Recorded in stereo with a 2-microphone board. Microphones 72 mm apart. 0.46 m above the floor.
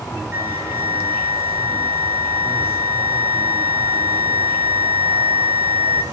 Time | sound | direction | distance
0.3 | a flute | 30° right (ahead or behind) | 1.8 m